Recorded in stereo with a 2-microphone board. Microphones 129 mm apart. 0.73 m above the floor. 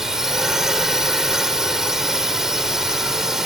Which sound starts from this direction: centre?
A drone, at 0.0 s.